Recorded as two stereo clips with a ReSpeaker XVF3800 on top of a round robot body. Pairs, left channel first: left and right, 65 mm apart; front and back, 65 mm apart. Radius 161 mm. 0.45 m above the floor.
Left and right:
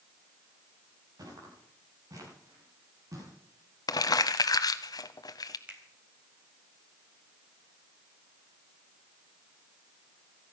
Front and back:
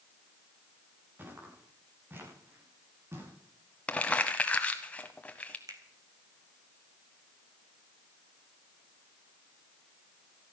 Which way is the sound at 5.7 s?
155° right.